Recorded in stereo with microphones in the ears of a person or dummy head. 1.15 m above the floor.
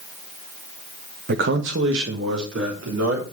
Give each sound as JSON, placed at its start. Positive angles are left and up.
{"t": 1.3, "sound": "a man speaking", "side_deg": -50, "distance_m": 1.0}